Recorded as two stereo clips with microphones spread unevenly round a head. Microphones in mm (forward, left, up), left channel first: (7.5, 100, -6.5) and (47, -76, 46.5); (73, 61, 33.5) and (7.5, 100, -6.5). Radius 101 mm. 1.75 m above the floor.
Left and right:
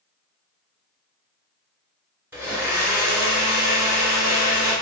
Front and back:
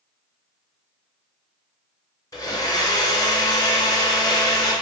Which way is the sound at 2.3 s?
Straight ahead.